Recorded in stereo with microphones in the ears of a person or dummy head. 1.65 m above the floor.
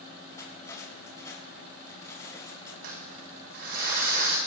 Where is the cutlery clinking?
20° left (ahead or behind), 5 m.